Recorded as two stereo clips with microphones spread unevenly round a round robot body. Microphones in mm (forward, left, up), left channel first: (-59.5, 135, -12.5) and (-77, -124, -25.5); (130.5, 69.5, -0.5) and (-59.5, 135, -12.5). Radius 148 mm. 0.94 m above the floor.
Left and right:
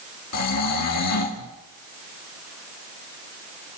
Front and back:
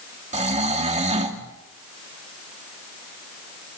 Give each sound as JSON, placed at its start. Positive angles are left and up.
{"t": 0.3, "sound": "snoring", "azimuth_deg": 110, "distance_m": 2.5}